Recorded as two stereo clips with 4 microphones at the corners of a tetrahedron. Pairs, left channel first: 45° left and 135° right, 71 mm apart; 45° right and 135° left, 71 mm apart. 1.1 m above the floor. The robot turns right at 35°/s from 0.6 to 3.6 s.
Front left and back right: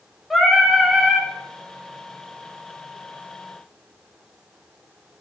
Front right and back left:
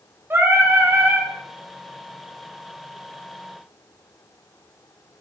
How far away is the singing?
About 0.6 m.